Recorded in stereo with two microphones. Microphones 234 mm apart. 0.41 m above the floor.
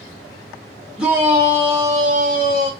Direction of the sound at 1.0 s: 5° right (ahead or behind).